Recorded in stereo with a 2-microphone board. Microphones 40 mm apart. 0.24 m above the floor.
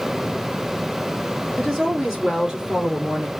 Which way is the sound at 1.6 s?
5° right (ahead or behind).